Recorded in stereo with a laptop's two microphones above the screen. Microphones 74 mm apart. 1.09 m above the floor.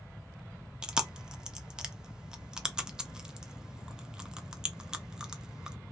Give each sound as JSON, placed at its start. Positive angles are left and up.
{"t": 0.8, "sound": "chewing", "side_deg": -10, "distance_m": 0.5}